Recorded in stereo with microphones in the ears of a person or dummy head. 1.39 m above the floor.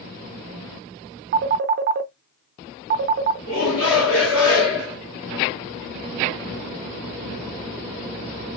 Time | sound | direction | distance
1.3 | a phone ringing | 50° right (ahead or behind) | 0.6 m
3.5 | a shout | 75° left (ahead or behind) | 1.9 m